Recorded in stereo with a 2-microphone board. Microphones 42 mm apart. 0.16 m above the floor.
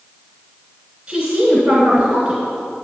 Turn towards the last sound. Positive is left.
turn(degrees=-20)  # may be behind; listen again after turning